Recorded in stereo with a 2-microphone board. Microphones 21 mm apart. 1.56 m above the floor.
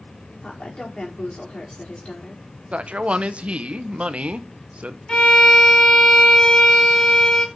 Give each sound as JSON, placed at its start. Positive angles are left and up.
{"t": 0.4, "sound": "a woman speaking", "side_deg": 50, "distance_m": 5.0}
{"t": 2.7, "sound": "a man speaking", "side_deg": -65, "distance_m": 0.9}
{"t": 5.1, "sound": "a violin", "side_deg": 40, "distance_m": 2.5}